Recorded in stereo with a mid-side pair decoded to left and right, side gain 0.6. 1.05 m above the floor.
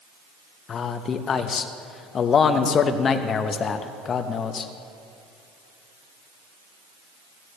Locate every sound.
0.7 s a man speaking: 40° left, 0.8 m